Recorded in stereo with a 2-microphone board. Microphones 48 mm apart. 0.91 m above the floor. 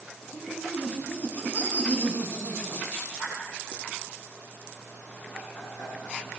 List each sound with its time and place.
0.3 s laughter: 30° left (ahead or behind), 9.5 m; by 6.2 s 45° left (ahead or behind), 11 m